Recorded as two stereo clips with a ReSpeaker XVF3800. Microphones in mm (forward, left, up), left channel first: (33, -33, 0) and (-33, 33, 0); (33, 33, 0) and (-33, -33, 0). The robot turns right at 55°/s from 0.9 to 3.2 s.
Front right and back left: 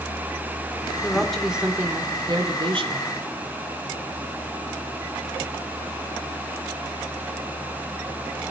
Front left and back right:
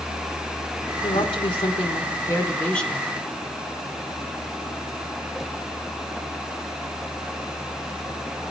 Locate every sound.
1.0 s a woman speaking: 25° left, 2.5 m; by 3.1 s 140° left, 2.5 m